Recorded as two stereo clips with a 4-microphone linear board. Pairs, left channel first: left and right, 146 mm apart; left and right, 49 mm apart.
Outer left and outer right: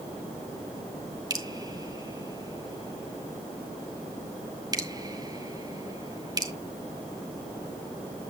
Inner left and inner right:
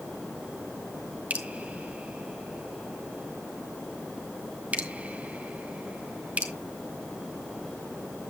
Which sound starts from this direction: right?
Dripping, at 1.3 s.